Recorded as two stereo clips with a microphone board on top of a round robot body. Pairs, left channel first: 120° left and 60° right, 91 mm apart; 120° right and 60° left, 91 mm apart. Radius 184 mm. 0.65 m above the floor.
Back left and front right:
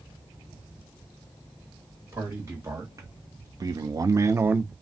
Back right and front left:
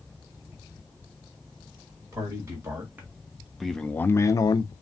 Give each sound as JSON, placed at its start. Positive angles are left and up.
{"t": 2.1, "sound": "a man speaking", "azimuth_deg": 0, "distance_m": 1.3}